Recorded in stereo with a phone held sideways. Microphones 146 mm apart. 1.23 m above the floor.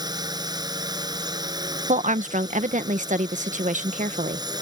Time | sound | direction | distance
0.0 | a drone | 25° right (ahead or behind) | ?
1.9 | a woman speaking | 60° right (ahead or behind) | ?